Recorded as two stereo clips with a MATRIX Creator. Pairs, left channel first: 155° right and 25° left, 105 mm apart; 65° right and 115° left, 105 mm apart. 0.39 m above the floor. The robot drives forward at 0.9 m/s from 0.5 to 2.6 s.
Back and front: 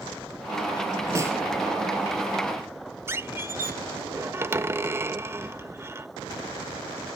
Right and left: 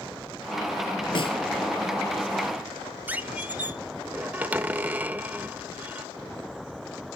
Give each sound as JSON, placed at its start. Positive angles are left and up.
{"t": 1.1, "sound": "a snare drum", "azimuth_deg": -35, "distance_m": 1.3}
{"t": 3.1, "sound": "a squeak", "azimuth_deg": 55, "distance_m": 0.8}